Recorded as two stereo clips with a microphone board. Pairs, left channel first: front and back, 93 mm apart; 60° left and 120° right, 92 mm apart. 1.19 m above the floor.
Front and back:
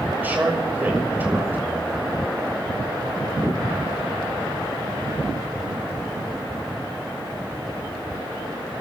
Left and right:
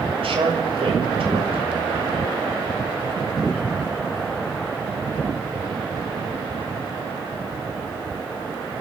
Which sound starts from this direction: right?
A man speaking, at 0.2 s.